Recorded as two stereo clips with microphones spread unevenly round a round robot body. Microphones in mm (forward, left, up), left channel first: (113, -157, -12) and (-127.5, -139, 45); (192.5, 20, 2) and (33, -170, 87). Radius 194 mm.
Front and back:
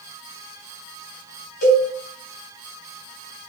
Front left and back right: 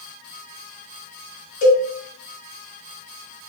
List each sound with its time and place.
1.6 s a cowbell: 15° left, 1.1 m